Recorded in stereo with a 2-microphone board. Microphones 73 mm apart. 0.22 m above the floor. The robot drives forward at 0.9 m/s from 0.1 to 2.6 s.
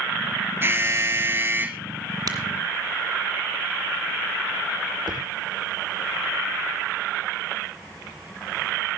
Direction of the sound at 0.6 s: 30° right (ahead or behind).